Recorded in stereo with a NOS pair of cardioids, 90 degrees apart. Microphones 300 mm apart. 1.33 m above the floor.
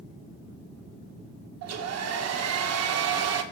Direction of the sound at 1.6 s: 55° right.